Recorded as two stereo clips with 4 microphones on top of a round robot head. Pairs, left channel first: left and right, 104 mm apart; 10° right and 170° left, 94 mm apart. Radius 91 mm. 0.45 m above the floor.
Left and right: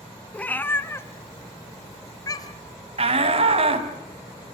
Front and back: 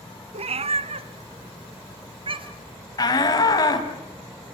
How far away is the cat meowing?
About 1.4 m.